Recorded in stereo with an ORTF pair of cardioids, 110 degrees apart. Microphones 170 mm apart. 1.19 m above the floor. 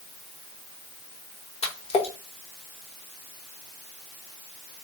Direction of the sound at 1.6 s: 40° left.